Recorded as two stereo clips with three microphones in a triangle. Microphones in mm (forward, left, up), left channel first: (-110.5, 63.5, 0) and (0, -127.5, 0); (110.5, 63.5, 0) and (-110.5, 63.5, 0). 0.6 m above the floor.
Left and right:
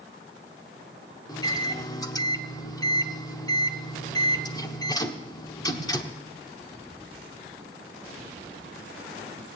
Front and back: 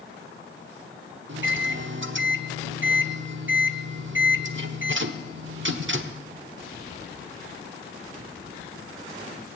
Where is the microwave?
170° right, 1.0 m.